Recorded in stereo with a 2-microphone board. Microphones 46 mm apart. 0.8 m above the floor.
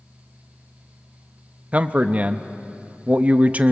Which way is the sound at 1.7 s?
35° right (ahead or behind).